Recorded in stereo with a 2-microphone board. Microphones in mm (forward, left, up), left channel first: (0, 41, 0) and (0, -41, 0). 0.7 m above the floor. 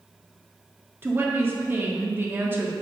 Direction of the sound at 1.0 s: 25° right (ahead or behind).